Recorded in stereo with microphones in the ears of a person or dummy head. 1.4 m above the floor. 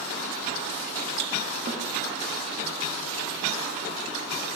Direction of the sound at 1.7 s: 40° right (ahead or behind).